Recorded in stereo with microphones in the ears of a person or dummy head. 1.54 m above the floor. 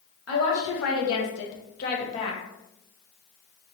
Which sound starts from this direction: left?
A woman speaking, at 0.3 s.